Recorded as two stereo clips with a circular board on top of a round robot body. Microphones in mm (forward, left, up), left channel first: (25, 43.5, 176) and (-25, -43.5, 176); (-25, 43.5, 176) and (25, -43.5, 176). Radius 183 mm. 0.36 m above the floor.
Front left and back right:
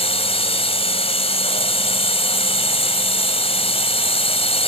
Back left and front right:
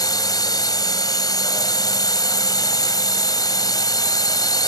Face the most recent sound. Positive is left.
turn(degrees=70)